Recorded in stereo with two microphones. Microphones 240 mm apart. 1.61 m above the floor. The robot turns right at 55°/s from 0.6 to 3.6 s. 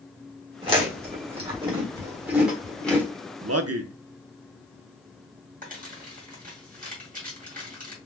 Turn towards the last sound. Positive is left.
turn(degrees=-35)  # may be behind; listen again after turning